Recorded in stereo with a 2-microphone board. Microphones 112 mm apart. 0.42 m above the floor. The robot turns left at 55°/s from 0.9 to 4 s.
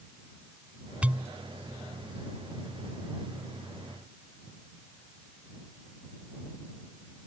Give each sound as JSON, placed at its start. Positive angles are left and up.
{"t": 1.0, "sound": "a pop", "side_deg": -10}